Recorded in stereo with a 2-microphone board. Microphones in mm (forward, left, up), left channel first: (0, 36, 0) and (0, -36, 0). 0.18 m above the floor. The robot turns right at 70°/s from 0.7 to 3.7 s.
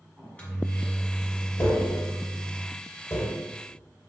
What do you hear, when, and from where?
0.2 s a microwave: 20° left (ahead or behind), 1.1 m; by 2.6 s 5° right (ahead or behind), 1.1 m
1.6 s tapping: 35° left (ahead or behind), 1.5 m; by 3.4 s 20° left (ahead or behind), 1.5 m